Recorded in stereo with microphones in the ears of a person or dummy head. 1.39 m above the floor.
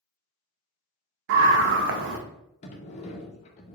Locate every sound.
1.3 s a scream: 65° right (ahead or behind), 1.3 m
2.6 s a sliding door: 35° left (ahead or behind), 1.2 m